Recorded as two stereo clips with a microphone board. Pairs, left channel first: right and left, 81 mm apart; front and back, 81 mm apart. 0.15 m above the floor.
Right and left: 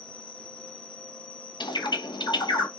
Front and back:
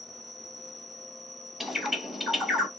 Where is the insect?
160° right, 3 m.